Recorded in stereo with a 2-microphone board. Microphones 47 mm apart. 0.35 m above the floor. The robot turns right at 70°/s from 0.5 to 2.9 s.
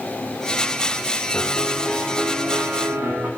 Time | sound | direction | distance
1.3 | a piano | 135° left | 5.5 m